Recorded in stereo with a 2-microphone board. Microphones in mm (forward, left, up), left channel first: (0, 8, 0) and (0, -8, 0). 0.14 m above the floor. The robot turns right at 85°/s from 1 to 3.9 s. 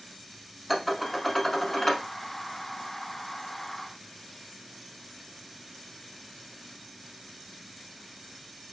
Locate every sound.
0.7 s dishes clattering: 10° left (ahead or behind), 0.7 m; by 2.0 s 25° left (ahead or behind), 0.7 m